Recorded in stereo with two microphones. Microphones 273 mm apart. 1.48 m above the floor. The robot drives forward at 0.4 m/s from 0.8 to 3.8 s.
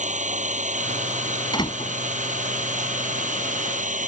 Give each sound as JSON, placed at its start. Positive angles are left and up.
{"t": 0.0, "sound": "an engine running", "side_deg": -25}
{"t": 1.5, "sound": "a door slam", "side_deg": 15}